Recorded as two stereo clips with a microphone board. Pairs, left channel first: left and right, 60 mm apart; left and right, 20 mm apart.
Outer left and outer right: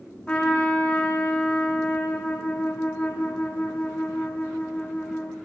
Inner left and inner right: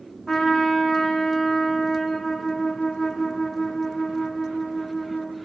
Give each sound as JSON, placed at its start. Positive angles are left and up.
{"t": 0.3, "sound": "a trumpet", "side_deg": 20, "distance_m": 4.0}